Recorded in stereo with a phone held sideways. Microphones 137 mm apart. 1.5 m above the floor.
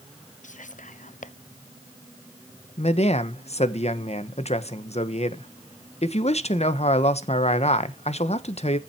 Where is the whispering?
70° left (ahead or behind), 0.8 m.